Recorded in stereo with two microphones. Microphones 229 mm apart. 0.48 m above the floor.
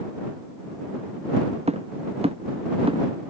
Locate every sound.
1.7 s footsteps: 25° right (ahead or behind); by 3.0 s 20° right (ahead or behind)